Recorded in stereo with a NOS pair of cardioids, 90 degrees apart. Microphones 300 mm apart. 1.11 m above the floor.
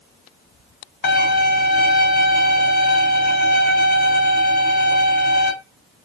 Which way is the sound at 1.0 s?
35° left.